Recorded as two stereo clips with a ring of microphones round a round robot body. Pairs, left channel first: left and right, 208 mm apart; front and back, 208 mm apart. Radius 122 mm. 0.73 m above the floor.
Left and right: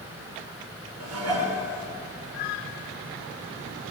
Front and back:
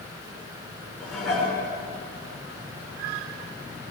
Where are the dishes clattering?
90° right, 7 m.